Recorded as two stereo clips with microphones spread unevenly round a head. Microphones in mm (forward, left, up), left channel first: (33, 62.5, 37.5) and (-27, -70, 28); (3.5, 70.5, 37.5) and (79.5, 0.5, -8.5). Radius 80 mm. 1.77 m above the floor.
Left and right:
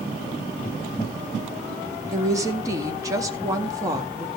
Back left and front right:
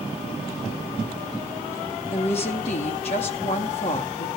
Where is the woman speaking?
175° left, 1.8 m.